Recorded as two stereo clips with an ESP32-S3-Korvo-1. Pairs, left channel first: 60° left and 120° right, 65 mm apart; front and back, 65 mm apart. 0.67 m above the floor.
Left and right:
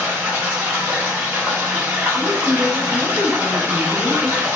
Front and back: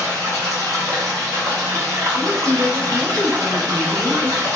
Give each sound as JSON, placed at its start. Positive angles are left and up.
{"t": 0.0, "sound": "running water", "azimuth_deg": -175, "distance_m": 1.5}
{"t": 2.1, "sound": "a woman speaking", "azimuth_deg": 100, "distance_m": 1.0}